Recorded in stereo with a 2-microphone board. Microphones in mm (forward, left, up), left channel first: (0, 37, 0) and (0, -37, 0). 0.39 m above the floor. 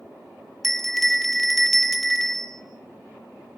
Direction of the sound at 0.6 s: Centre (ahead or behind).